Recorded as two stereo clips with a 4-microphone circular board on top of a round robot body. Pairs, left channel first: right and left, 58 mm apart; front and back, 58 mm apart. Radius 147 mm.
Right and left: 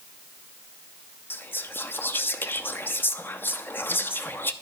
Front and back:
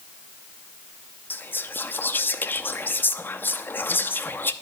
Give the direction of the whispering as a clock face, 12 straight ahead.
1 o'clock.